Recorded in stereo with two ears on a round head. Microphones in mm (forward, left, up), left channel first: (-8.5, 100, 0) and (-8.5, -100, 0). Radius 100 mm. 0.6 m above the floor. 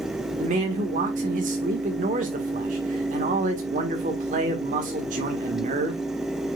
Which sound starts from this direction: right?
A man speaking, at 0.4 s.